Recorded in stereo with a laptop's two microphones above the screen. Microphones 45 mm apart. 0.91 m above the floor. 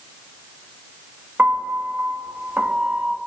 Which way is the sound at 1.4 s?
40° right (ahead or behind).